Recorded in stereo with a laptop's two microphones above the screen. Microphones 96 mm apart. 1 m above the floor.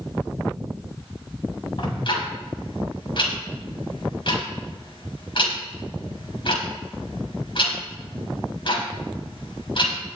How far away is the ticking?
About 4.5 m.